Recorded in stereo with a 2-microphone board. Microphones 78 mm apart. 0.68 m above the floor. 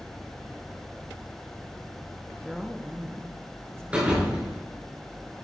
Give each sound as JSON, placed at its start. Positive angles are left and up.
{"t": 2.5, "sound": "a woman speaking", "side_deg": 5, "distance_m": 0.8}
{"t": 3.9, "sound": "a thud", "side_deg": -15, "distance_m": 4.0}